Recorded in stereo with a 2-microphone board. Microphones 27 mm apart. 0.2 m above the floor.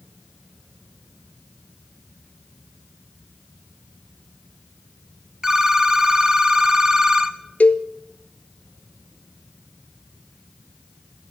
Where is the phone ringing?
20° right (ahead or behind), 0.8 m.